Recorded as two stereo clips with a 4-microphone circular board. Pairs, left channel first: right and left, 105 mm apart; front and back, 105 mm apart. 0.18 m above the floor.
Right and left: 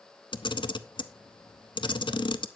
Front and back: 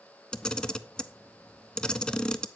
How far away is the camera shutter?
About 0.6 m.